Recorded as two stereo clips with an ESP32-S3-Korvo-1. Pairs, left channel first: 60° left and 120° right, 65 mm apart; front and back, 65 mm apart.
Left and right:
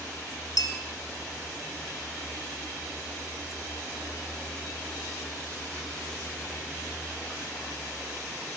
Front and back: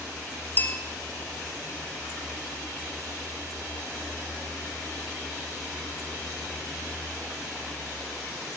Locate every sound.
0.6 s a bell: 60° left, 3 m